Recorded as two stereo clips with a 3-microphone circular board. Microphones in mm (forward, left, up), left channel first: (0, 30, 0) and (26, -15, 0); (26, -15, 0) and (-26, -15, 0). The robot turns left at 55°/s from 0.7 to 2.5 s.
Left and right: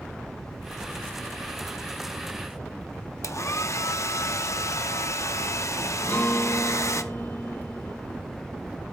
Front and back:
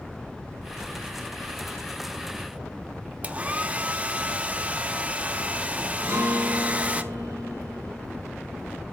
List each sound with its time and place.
3.2 s a hair dryer: 120° left, 0.6 m
6.0 s a guitar: 165° left, 4.5 m